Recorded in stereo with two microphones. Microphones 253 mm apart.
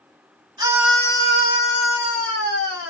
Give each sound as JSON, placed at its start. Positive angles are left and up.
{"t": 0.6, "sound": "a scream", "side_deg": -15, "distance_m": 1.0}